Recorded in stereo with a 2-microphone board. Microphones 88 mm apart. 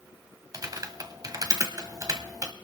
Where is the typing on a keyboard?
45° right (ahead or behind), 1.2 m.